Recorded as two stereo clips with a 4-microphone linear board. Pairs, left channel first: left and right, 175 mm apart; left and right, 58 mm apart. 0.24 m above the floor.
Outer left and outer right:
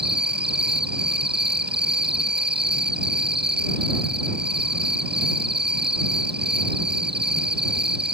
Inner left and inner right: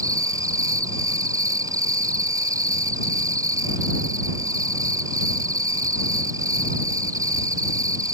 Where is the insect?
70° right (ahead or behind).